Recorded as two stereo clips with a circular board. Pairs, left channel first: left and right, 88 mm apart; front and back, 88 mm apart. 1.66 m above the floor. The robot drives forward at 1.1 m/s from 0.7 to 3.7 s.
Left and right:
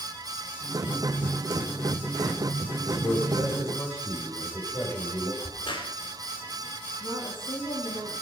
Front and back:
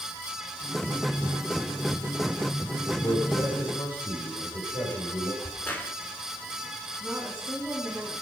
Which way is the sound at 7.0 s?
100° left.